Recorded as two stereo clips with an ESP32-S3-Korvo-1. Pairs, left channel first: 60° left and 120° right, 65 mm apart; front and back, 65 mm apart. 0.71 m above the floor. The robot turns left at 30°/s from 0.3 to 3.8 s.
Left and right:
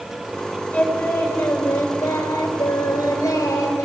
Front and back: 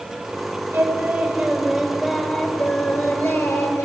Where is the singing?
125° left, 2.5 m; by 3.9 s 35° left, 2.5 m.